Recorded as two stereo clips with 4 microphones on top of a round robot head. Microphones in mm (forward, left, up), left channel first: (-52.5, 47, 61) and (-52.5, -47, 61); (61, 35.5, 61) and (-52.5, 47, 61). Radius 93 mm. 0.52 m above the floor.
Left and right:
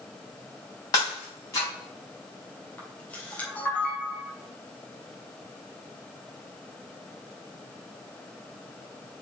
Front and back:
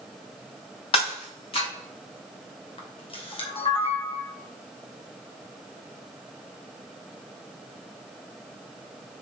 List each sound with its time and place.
0.9 s breaking glass: 30° left, 3.5 m
2.8 s a camera shutter: 15° left, 2.5 m